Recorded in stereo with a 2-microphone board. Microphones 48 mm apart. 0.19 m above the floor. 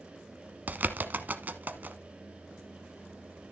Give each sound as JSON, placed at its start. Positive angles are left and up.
{"t": 0.7, "sound": "a bird", "side_deg": -40, "distance_m": 0.9}